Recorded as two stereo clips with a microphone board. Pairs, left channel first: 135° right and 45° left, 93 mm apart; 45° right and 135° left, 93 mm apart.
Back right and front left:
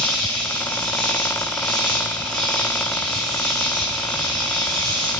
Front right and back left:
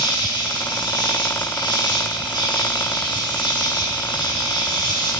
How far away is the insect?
About 3.5 m.